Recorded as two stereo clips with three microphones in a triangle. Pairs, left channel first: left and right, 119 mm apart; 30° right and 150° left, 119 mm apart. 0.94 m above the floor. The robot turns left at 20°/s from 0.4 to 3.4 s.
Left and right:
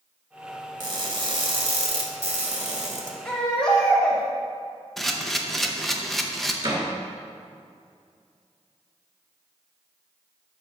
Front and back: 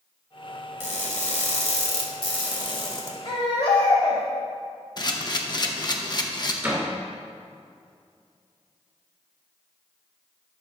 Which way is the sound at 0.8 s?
35° right.